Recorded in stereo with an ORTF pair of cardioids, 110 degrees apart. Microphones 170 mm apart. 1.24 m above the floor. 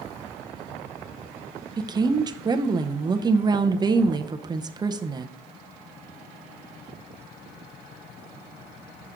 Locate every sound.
1.8 s a woman speaking: 25° right, 0.6 m